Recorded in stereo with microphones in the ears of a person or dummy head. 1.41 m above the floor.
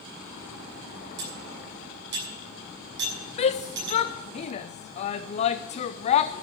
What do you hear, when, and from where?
1.2 s cutlery clinking: 70° right (ahead or behind), 7.5 m
3.4 s a shout: 35° left (ahead or behind), 0.5 m